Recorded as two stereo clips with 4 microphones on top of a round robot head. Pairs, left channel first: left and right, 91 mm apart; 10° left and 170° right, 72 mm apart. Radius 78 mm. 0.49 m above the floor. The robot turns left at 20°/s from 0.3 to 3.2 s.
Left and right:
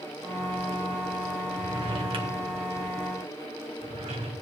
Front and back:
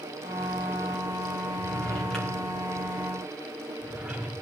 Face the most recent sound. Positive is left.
turn(degrees=-90)